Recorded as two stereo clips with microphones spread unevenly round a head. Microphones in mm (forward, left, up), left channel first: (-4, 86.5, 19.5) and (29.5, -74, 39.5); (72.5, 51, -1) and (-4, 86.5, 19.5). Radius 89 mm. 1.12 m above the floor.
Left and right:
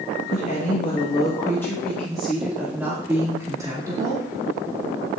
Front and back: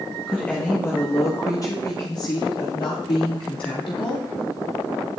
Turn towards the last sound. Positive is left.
turn(degrees=-10)